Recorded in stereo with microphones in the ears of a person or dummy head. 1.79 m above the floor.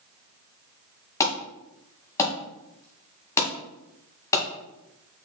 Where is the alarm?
20° left (ahead or behind), 2.0 m.